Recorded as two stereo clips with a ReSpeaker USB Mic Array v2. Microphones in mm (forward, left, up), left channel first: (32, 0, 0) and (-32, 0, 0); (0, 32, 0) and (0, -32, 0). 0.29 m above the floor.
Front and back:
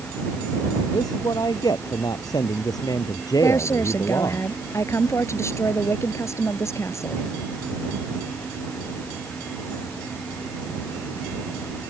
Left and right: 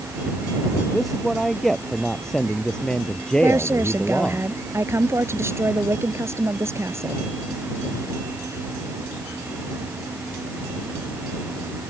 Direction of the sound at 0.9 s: Straight ahead.